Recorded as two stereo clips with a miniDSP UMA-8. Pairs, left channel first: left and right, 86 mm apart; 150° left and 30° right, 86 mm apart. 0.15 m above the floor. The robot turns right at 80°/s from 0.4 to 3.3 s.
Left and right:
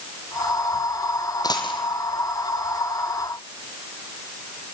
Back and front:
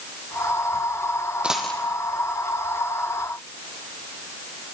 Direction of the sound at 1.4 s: 50° left.